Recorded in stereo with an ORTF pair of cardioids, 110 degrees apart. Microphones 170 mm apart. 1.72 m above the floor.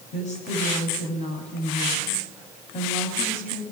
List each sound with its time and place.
0.1 s a woman speaking: 45° left, 9.5 m